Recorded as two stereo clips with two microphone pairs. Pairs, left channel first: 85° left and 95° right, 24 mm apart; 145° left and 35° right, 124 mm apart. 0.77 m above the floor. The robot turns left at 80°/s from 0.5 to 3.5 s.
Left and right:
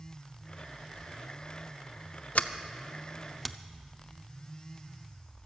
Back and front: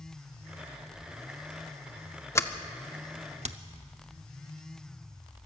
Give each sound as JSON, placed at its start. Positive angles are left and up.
{"t": 2.4, "sound": "a sliding door", "azimuth_deg": 85, "distance_m": 0.6}